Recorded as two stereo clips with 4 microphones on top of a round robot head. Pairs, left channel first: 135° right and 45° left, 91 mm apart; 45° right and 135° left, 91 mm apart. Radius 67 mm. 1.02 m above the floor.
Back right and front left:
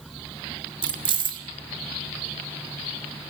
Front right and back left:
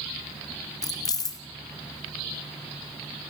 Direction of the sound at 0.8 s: 5° left.